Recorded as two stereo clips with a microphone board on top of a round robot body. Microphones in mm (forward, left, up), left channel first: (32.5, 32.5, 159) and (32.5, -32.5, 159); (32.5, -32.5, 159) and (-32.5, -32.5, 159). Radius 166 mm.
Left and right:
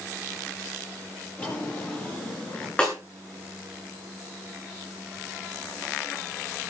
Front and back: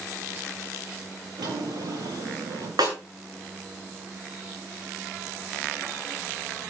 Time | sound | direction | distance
1.4 | a drawer | 160° left | 9.5 m
2.8 | a snare drum | 165° left | 8.5 m